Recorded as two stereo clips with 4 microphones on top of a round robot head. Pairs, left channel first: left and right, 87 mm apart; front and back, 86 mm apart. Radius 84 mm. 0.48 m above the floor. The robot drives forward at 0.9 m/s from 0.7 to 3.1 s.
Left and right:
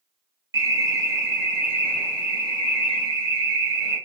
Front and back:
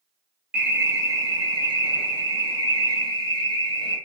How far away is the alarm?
About 1.0 m.